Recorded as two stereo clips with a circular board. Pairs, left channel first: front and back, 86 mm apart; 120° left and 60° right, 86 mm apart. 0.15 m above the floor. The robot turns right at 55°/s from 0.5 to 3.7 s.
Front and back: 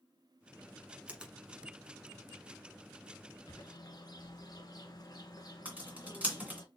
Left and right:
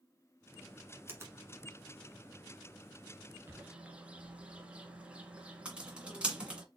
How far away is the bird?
About 1.2 m.